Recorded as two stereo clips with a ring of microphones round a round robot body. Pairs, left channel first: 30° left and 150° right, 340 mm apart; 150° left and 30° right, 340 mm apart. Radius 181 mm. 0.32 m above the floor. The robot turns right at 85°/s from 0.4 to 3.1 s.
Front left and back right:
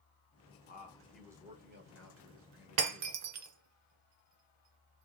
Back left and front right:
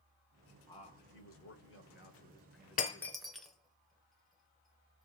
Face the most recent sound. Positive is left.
turn(degrees=-120)